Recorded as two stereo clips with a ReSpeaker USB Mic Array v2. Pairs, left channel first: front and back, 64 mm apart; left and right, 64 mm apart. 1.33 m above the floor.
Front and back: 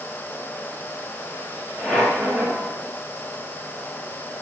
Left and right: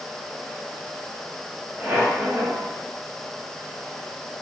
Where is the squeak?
55° right, 1.4 m.